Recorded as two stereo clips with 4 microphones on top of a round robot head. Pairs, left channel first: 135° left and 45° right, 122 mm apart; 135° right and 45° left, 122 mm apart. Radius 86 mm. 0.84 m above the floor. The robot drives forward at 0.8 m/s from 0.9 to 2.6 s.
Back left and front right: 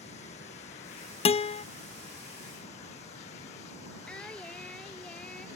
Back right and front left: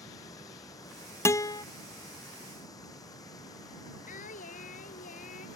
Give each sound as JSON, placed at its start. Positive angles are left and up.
{"t": 0.0, "sound": "running water", "azimuth_deg": 160}
{"t": 1.2, "sound": "a guitar", "azimuth_deg": 160}
{"t": 4.1, "sound": "singing", "azimuth_deg": -140}